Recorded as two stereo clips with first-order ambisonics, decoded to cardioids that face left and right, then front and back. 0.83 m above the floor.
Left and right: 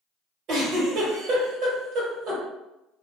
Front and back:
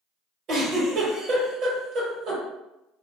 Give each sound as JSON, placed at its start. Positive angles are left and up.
{"t": 0.5, "sound": "a giggle", "azimuth_deg": -135, "distance_m": 1.3}